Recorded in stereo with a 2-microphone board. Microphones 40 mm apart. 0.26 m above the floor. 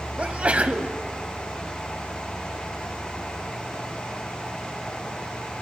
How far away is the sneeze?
About 1.2 m.